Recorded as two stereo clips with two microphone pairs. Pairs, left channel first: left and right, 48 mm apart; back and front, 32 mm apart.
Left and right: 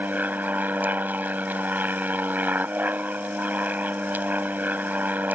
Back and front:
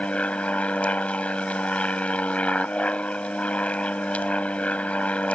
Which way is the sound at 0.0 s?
135° right.